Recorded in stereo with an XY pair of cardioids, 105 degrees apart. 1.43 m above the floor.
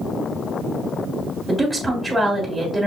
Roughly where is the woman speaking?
Ahead.